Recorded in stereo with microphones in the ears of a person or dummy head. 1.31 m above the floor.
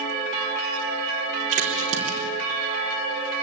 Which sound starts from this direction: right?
A crack, at 1.5 s.